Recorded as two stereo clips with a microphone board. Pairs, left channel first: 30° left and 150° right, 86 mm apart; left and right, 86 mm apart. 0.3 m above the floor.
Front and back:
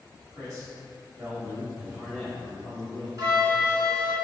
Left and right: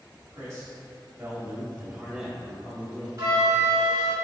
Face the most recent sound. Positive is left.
turn(degrees=-125)